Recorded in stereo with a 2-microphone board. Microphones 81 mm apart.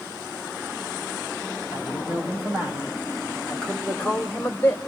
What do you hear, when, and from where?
1.7 s a man speaking: 25° right (ahead or behind), 5 m; by 4.8 s 25° left (ahead or behind), 2.5 m